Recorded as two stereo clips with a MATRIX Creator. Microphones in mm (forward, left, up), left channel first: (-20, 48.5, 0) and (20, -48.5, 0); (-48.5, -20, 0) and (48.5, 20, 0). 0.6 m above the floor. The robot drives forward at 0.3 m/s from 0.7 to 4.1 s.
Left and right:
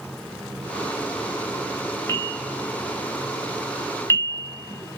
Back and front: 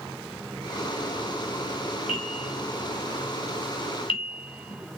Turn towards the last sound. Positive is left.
turn(degrees=180)